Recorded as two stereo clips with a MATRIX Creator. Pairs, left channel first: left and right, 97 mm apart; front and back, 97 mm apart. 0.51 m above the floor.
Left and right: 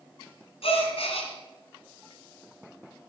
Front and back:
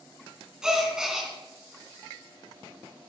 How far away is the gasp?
About 3 m.